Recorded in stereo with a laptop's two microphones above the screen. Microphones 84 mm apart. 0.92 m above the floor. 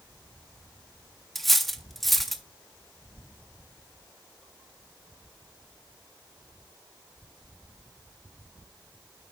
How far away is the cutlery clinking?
About 0.5 m.